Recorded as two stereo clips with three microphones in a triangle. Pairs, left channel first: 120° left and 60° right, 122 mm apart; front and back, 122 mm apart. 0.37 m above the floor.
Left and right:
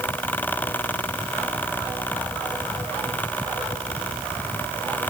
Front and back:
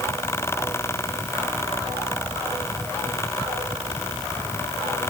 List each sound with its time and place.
Only background noise.